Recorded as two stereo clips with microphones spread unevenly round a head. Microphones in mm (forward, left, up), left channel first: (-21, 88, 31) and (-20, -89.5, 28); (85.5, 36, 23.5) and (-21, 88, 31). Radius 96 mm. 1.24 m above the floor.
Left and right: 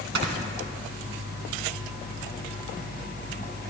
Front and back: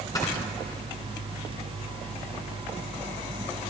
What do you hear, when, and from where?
0.1 s snoring: 100° right, 2.5 m